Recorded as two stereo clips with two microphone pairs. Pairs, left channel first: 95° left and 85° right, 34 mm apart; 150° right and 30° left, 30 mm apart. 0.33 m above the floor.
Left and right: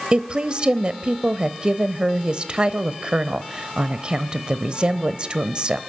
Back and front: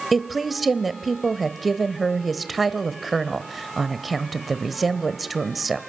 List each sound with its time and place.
0.1 s a woman speaking: 55° right, 1.0 m